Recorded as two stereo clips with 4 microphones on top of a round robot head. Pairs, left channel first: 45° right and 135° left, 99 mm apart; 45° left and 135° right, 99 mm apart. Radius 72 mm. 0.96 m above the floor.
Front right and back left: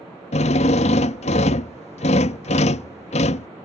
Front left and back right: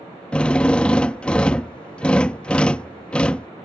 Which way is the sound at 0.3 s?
35° right.